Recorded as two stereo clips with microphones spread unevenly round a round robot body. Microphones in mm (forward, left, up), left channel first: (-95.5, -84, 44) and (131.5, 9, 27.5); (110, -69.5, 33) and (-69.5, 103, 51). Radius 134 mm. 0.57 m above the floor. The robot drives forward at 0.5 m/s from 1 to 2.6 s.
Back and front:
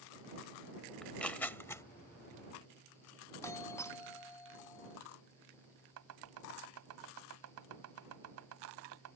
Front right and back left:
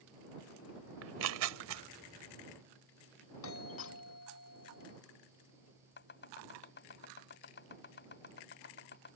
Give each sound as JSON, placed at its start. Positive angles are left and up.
{"t": 1.0, "sound": "tearing paper", "azimuth_deg": 115}
{"t": 3.4, "sound": "a doorbell", "azimuth_deg": -80}
{"t": 6.0, "sound": "chopping", "azimuth_deg": 5}